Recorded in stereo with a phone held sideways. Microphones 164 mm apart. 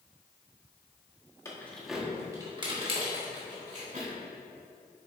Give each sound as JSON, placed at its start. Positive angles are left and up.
{"t": 1.4, "sound": "keys jangling", "side_deg": 20, "distance_m": 1.2}